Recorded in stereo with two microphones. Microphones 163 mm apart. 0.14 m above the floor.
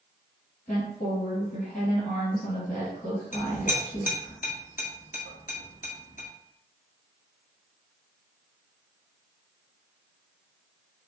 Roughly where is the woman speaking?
Left.